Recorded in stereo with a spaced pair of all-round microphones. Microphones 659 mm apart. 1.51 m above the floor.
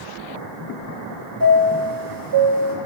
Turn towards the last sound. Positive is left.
turn(degrees=-30)  # may be behind; listen again after turning